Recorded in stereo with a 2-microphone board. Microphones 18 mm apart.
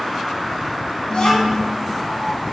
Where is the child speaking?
55° left (ahead or behind), 1.4 m.